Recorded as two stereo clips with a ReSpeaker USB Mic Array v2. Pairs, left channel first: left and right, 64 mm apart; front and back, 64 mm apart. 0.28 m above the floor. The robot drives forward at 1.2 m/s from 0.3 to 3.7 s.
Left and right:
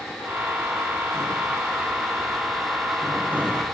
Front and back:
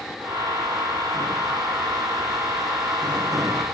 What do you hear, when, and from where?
Only background noise.